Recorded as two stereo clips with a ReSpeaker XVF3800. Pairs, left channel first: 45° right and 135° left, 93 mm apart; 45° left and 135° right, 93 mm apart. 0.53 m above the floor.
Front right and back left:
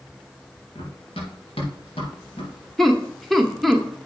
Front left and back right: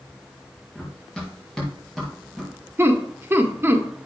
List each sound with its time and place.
0.8 s running footsteps: 35° right, 3.5 m; by 2.5 s 45° right, 4.5 m
2.8 s laughter: 135° right, 1.1 m